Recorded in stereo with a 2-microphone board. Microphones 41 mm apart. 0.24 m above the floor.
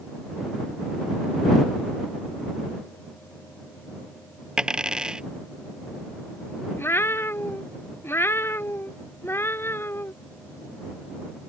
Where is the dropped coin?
25° right (ahead or behind).